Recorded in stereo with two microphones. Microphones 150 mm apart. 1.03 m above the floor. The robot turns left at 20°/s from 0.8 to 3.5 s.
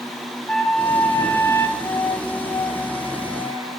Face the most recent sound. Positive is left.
turn(degrees=130)